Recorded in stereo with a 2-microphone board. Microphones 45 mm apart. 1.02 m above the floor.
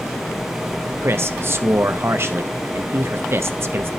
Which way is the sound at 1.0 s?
60° right (ahead or behind).